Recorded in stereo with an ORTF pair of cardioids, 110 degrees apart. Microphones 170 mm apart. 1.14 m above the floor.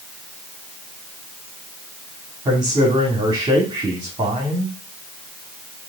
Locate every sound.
2.5 s a man speaking: 25° right, 2.5 m